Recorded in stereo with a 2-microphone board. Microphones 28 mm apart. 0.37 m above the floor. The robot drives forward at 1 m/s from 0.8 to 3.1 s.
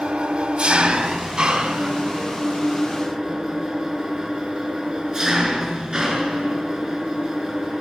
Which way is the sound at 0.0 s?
35° right (ahead or behind).